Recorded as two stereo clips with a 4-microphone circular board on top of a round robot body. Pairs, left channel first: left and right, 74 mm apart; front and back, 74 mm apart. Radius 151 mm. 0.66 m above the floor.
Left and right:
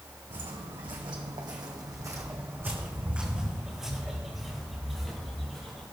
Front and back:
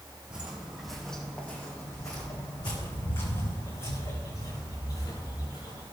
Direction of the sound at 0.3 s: 105° right.